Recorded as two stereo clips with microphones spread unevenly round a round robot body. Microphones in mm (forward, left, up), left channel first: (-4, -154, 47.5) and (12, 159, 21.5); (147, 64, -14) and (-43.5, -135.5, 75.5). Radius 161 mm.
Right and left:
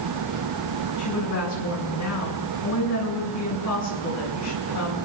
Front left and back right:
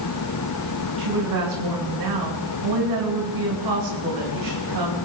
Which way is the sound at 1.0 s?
135° right.